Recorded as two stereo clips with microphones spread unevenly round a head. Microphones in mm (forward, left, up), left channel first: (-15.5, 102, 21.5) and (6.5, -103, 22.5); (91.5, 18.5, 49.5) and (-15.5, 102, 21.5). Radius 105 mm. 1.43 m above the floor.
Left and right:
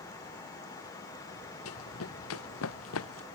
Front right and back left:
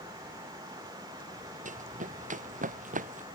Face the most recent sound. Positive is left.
turn(degrees=120)